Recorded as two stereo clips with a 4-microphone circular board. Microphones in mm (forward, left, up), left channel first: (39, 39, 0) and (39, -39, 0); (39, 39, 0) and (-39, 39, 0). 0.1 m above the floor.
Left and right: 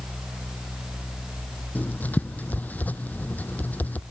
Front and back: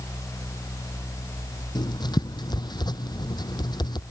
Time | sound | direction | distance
1.8 | writing | 20° left | ?